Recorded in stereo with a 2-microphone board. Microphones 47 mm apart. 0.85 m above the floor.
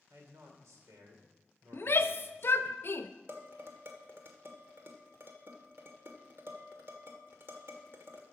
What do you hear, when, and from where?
0.1 s a man speaking: 80° right, 2.5 m
1.7 s a shout: 50° left (ahead or behind), 0.7 m
3.3 s dishes clattering: 50° right (ahead or behind), 1.4 m